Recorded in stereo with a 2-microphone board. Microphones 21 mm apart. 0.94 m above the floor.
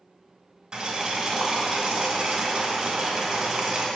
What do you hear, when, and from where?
0.7 s boiling: 35° right (ahead or behind), 2.0 m